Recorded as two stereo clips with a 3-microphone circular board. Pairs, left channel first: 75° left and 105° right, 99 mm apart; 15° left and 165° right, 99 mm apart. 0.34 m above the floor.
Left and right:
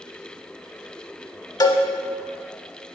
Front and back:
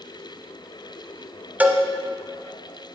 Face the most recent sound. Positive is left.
turn(degrees=120)